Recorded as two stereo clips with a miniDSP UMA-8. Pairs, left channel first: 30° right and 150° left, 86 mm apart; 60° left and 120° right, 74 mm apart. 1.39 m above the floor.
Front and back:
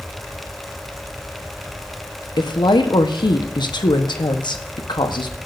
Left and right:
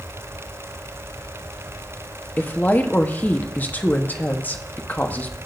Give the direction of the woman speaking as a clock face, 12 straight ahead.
12 o'clock.